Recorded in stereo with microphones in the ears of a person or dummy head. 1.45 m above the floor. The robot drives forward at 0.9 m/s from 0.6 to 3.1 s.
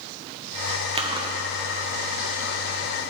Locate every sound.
0.9 s chewing: 30° right (ahead or behind), 0.9 m; by 2.6 s 10° right (ahead or behind), 2.5 m